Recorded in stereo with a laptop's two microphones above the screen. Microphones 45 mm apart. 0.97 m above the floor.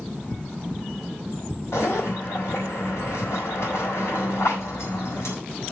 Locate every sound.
1.7 s a zipper: 80° left, 4.5 m